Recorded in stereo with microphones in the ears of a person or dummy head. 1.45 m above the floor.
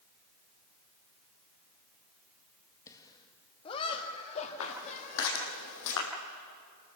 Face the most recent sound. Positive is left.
turn(degrees=65)  # may be behind; listen again after turning